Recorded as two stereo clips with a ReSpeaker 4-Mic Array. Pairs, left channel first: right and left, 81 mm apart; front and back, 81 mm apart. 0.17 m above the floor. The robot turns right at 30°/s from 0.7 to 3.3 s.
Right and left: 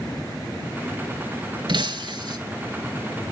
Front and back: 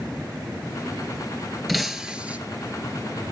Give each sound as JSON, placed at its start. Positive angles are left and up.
{"t": 1.7, "sound": "breaking glass", "azimuth_deg": 90, "distance_m": 0.7}